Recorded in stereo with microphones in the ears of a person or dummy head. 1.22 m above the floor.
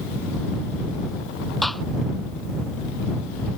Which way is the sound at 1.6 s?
5° right (ahead or behind).